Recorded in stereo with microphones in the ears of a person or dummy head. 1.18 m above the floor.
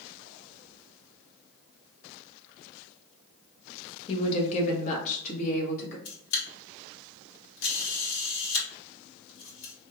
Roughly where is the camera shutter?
Left.